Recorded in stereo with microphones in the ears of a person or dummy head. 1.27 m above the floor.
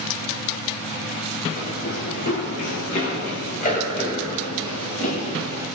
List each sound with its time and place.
1.6 s running footsteps: 50° left (ahead or behind), 3.5 m; by 5.7 s 40° left (ahead or behind), 8 m